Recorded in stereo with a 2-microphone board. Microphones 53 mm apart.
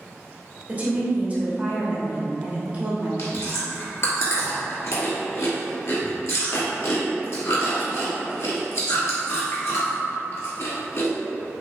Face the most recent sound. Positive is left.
turn(degrees=65)  # may be behind; listen again after turning